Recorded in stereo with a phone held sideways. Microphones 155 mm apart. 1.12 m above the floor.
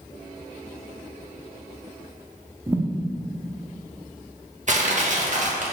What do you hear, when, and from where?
2.7 s a thud: 15° right (ahead or behind), 0.8 m
4.7 s crushing: 50° right (ahead or behind), 1.3 m